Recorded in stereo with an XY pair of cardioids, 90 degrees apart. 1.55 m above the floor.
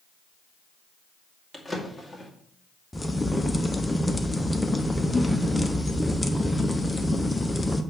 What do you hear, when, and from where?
1.5 s a drawer: 10° left, 2 m
2.9 s a crack: 15° left, 0.9 m